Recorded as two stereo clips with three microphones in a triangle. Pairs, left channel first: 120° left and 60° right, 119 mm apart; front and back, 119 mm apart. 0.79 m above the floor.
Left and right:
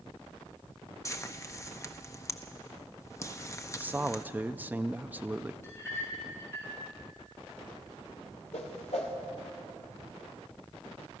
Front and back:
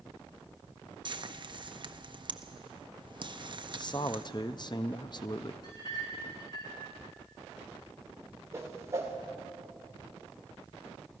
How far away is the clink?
About 6.5 m.